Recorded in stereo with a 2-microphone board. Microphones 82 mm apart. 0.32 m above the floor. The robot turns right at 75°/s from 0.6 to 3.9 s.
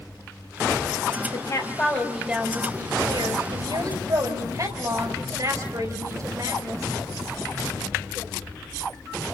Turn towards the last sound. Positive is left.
turn(degrees=-55)